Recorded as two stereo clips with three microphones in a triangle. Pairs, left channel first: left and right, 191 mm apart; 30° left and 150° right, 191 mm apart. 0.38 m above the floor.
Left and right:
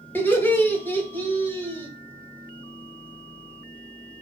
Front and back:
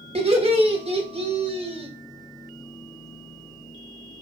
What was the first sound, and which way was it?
Laughter, 165° left.